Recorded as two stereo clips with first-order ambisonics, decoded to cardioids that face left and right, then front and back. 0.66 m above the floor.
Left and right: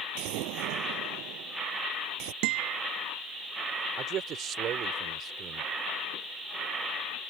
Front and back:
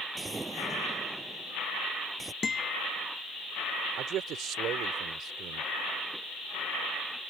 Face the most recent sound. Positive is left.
turn(degrees=-140)